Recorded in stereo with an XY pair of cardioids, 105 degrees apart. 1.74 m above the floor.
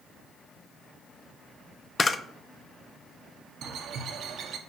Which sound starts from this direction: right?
A bird, at 3.6 s.